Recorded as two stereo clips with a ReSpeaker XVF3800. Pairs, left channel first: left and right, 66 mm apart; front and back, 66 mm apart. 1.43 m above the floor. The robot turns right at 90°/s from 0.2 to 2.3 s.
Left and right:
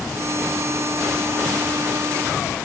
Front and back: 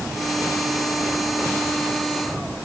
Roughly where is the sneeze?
No sneeze in this recording.